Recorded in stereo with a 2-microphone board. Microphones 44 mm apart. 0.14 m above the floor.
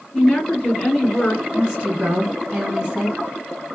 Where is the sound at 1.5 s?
20° right (ahead or behind), 1.2 m.